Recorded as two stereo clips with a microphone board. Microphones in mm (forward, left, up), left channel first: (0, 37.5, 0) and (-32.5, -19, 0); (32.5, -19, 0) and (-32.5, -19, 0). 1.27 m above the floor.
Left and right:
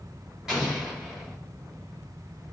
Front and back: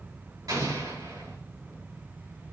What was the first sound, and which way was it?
An explosion, 160° left.